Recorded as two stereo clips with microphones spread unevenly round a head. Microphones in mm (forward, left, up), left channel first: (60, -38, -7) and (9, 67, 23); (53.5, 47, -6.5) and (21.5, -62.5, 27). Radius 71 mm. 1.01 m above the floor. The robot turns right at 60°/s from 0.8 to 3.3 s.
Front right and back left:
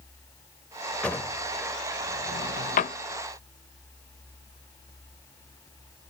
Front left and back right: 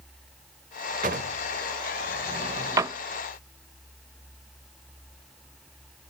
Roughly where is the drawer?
Behind right.